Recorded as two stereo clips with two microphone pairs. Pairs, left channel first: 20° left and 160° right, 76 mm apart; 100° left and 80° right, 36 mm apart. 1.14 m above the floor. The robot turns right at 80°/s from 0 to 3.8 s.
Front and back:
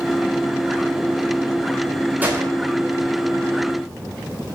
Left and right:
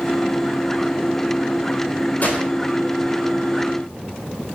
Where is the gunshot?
135° left, 3.5 m; by 2.5 s 155° left, 3.5 m.